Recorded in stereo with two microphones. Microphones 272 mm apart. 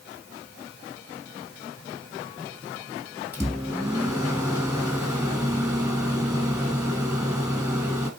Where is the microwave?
10° right (ahead or behind), 3 m.